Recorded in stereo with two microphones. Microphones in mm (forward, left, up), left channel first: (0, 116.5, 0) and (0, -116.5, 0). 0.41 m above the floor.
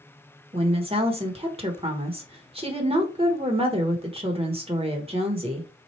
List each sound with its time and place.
0.5 s a woman speaking: 25° right (ahead or behind), 1.1 m